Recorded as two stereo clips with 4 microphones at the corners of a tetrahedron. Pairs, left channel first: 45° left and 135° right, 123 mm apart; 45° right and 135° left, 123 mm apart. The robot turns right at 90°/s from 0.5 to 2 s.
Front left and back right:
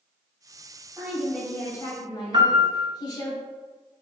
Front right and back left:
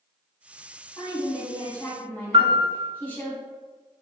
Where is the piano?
175° left, 0.6 m.